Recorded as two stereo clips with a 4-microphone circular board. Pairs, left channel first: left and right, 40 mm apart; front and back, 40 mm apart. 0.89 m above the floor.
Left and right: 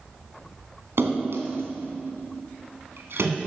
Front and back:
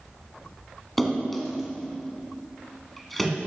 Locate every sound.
1.0 s a splash: 90° right, 1.9 m